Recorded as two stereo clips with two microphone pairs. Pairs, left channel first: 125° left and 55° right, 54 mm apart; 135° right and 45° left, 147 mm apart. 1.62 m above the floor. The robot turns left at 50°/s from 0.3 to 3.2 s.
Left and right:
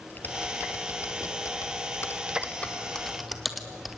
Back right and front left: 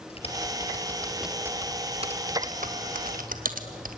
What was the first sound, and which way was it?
Typing on a keyboard, 175° left.